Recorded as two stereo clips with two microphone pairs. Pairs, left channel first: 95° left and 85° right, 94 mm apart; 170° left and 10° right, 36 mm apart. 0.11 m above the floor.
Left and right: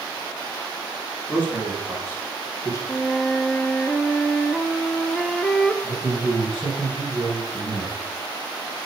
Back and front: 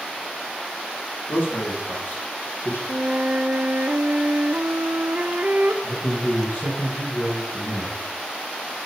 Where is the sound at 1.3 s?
165° left, 4.5 m; by 2.8 s 150° left, 4 m.